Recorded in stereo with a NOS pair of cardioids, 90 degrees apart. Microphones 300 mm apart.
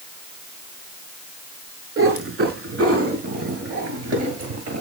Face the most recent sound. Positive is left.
turn(degrees=-60)